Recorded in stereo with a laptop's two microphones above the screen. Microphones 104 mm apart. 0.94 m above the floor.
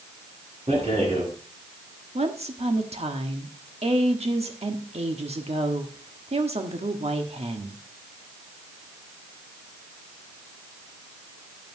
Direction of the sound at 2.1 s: 80° right.